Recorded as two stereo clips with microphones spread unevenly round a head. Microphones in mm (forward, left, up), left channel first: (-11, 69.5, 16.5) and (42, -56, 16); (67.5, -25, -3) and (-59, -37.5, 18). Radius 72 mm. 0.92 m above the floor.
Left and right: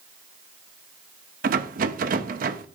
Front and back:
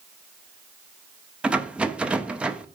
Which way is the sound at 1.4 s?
90° right.